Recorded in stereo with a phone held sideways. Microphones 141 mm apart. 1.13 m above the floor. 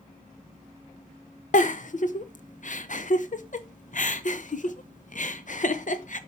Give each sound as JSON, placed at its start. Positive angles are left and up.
{"t": 1.5, "sound": "a giggle", "side_deg": 60, "distance_m": 0.9}